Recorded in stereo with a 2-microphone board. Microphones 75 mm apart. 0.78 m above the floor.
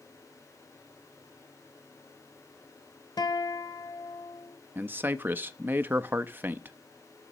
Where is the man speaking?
25° right (ahead or behind), 0.5 m.